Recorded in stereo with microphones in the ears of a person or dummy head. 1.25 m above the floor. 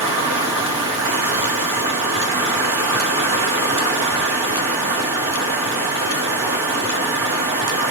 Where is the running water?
25° right (ahead or behind), 2.5 m.